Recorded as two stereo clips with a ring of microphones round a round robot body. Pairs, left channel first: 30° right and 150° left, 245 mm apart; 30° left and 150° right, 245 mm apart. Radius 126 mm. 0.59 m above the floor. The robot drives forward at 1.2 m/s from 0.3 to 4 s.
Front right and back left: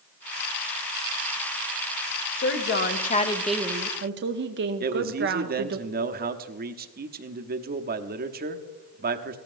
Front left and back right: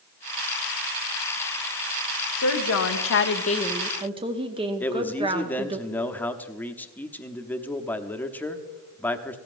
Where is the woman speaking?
10° left, 1.6 m; by 5.8 s 150° left, 0.7 m.